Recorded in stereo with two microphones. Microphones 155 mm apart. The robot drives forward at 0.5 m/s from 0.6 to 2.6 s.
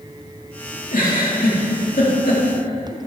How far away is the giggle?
About 2 m.